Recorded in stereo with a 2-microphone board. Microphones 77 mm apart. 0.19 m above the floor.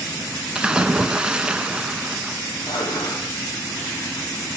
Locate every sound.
0.6 s a splash: 15° right (ahead or behind), 0.7 m
2.7 s dishes clattering: 75° left (ahead or behind), 3.5 m